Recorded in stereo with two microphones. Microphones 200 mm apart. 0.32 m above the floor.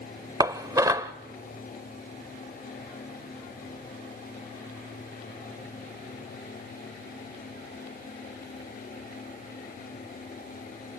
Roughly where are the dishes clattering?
Centre.